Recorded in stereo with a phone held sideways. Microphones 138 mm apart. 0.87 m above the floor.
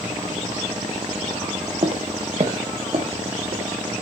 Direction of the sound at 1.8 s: 45° right (ahead or behind).